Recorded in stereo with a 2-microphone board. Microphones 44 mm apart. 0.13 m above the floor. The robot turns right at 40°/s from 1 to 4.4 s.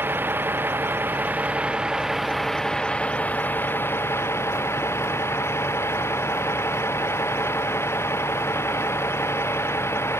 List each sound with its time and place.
0.0 s a vehicle: 55° right; by 10.2 s 80° left